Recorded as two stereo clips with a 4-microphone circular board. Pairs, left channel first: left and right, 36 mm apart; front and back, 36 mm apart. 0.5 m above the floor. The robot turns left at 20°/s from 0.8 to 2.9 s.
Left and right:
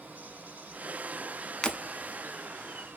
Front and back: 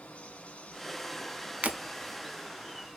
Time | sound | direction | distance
0.0 | running water | 45° right | 1.0 m
1.6 | breaking glass | 155° left | 0.6 m